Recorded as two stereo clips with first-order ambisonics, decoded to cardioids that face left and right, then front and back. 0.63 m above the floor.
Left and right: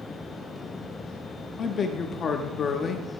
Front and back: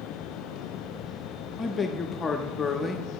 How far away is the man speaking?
About 0.7 m.